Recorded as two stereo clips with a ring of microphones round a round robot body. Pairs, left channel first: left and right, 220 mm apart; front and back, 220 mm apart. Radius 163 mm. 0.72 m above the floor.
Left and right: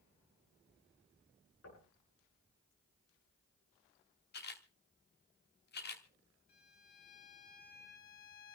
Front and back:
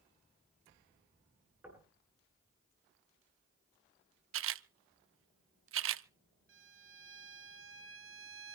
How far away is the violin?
About 1.1 m.